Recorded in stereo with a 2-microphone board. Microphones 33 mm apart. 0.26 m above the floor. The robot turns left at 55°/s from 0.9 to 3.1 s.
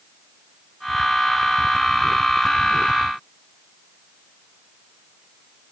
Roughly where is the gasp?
No gasp in this recording.